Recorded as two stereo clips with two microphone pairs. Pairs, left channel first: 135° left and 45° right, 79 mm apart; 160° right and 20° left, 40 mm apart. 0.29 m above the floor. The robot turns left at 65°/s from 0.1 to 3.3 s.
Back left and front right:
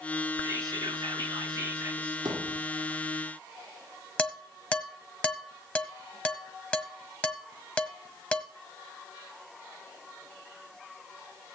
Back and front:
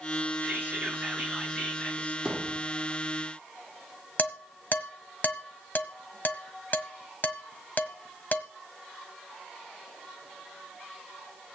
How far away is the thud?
About 5.5 m.